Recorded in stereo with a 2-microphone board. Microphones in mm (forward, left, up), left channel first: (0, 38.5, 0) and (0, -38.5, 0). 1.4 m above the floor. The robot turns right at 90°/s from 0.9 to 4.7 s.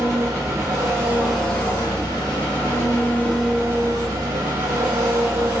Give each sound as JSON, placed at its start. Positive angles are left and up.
{"t": 0.0, "sound": "an engine running", "azimuth_deg": -40, "distance_m": 1.5}